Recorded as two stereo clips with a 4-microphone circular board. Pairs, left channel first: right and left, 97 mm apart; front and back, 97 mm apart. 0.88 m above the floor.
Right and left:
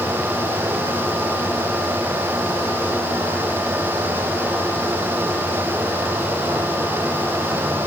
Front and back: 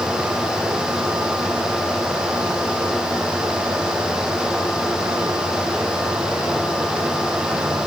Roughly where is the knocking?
I don't hear knocking.